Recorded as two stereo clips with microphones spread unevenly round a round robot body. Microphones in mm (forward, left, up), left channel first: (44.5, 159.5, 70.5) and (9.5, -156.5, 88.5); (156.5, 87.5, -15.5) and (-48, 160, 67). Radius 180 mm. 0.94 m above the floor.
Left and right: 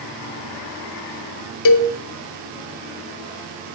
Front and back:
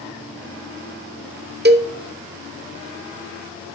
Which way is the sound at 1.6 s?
100° left.